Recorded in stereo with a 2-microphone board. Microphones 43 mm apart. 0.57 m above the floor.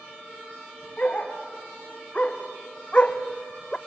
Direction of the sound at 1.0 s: 35° left (ahead or behind).